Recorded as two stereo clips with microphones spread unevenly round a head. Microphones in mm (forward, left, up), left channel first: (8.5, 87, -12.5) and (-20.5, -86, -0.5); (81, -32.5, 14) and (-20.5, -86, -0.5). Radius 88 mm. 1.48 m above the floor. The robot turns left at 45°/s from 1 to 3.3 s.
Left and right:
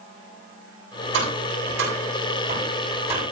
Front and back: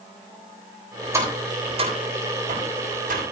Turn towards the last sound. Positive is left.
turn(degrees=175)